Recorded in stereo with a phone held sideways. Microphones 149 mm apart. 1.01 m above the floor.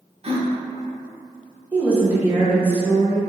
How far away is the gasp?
About 0.7 m.